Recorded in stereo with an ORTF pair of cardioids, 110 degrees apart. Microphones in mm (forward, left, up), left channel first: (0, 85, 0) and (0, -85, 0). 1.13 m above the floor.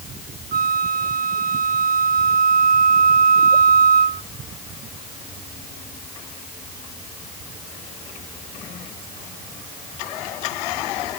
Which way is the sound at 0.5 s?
60° right.